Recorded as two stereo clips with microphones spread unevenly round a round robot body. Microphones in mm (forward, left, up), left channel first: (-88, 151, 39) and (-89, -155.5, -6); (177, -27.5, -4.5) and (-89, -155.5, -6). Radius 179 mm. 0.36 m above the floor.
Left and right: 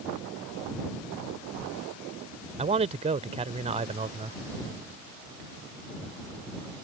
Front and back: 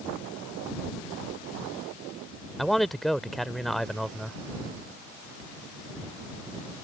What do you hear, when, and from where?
2.6 s a man speaking: 65° right